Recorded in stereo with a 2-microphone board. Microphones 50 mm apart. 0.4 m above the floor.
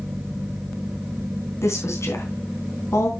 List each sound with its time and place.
1.6 s a woman speaking: 70° left (ahead or behind), 3.5 m